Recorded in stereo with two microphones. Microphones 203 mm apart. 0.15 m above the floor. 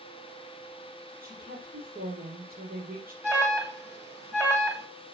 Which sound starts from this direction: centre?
An alarm, at 3.2 s.